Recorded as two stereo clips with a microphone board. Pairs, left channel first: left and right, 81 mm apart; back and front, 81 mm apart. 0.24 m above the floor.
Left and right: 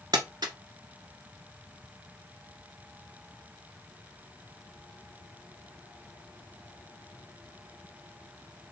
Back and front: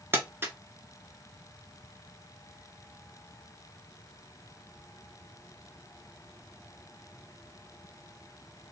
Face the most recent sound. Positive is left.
turn(degrees=-60)